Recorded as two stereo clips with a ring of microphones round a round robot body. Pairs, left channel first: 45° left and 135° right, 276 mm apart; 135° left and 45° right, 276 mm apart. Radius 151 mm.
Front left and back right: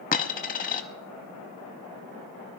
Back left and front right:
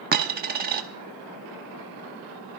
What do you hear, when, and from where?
0.1 s a dropped coin: 5° right, 0.5 m